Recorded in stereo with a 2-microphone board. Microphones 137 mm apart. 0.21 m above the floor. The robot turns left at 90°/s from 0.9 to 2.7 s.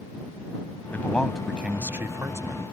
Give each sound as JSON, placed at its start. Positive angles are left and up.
{"t": 0.9, "sound": "a man speaking", "side_deg": 15}